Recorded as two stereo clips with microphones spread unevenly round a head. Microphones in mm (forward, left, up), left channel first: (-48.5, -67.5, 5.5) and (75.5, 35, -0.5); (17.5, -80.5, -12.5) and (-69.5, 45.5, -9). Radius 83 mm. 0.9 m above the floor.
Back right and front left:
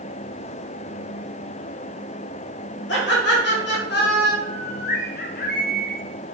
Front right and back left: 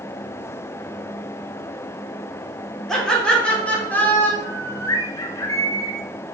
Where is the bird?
120° right, 1.4 m.